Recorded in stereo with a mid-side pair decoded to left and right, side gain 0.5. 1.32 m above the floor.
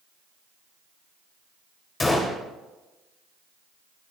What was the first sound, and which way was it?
A gunshot, 20° left.